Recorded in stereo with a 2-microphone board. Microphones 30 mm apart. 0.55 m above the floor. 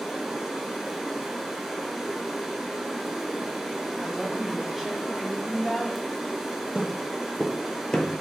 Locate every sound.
0.0 s running water: 10° right (ahead or behind), 0.8 m
4.0 s a woman speaking: 5° right (ahead or behind), 0.9 m
6.8 s footsteps: 30° right (ahead or behind), 0.7 m; by 8.2 s 35° left (ahead or behind), 0.7 m